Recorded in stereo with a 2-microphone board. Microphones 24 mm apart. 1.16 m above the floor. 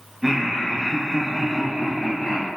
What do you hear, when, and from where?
0.2 s laughter: 10° right (ahead or behind), 0.6 m; by 2.5 s 15° left (ahead or behind), 1.7 m